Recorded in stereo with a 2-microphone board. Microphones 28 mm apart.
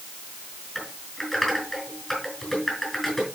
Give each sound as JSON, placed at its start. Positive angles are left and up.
{"t": 0.8, "sound": "typing on a keyboard", "side_deg": 5, "distance_m": 5.0}